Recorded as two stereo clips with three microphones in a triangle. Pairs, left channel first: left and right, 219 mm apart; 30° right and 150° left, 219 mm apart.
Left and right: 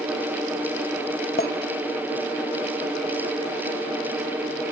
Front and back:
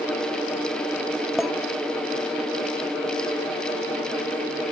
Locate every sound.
1.4 s a clink: 60° left, 0.9 m